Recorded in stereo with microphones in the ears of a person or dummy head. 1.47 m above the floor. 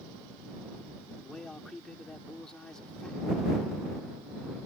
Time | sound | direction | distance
1.2 | a man speaking | 5° left (ahead or behind) | ?